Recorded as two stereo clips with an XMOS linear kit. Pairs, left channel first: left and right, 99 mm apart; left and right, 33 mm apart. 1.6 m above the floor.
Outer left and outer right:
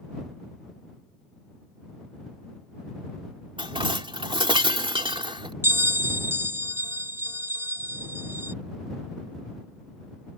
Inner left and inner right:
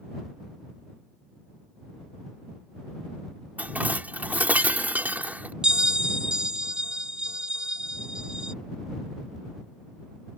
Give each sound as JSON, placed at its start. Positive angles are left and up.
{"t": 3.6, "sound": "dishes clattering", "side_deg": -55}
{"t": 5.6, "sound": "a bell", "side_deg": -25}